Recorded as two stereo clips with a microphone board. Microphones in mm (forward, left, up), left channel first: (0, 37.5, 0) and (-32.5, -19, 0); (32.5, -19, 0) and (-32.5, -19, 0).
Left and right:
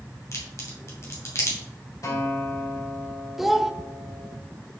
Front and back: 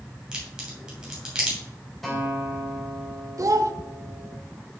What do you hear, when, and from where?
0.3 s a crack: 105° left, 3 m
2.0 s a guitar: 90° left, 3.5 m
3.4 s a child speaking: 155° left, 0.8 m